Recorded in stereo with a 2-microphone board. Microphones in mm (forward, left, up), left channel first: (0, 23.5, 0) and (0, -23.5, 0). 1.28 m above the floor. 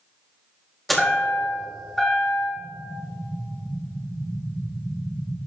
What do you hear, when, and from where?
0.9 s a chime: 5° left (ahead or behind), 2.5 m
2.6 s an explosion: 65° right (ahead or behind), 0.8 m